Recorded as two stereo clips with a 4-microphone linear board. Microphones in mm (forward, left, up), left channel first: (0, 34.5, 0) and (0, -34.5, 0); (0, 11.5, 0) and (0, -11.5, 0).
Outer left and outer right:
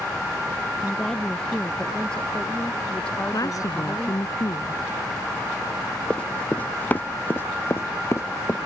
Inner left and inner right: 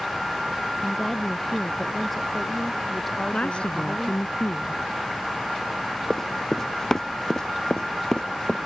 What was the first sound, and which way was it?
A woman speaking, 5° left (ahead or behind).